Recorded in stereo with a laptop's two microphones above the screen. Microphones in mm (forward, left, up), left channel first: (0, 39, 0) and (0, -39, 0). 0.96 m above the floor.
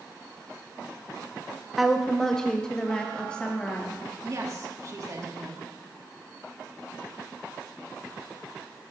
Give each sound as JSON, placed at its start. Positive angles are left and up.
{"t": 1.8, "sound": "a woman speaking", "side_deg": 0, "distance_m": 0.7}
{"t": 4.2, "sound": "a woman speaking", "side_deg": -45, "distance_m": 1.5}